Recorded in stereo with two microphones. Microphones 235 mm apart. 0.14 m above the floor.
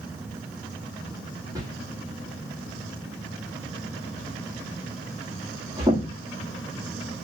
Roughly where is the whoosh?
Centre.